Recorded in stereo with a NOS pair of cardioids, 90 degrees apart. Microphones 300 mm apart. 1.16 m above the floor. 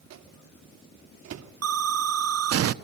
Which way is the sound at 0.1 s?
60° right.